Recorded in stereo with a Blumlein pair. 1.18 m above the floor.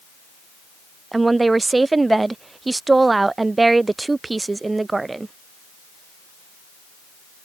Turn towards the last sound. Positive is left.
turn(degrees=-10)